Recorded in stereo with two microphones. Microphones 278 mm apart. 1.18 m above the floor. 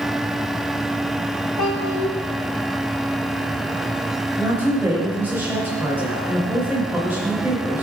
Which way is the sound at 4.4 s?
5° right (ahead or behind).